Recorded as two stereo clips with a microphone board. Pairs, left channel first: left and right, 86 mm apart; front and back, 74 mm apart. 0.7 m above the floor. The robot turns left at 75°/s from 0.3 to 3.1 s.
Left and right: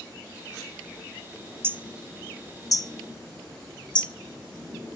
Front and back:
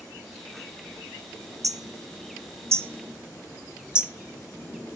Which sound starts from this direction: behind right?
Hammering, at 1.6 s.